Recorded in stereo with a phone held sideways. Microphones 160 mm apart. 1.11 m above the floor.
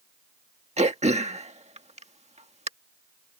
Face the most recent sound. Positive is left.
turn(degrees=-45)  # may be behind; listen again after turning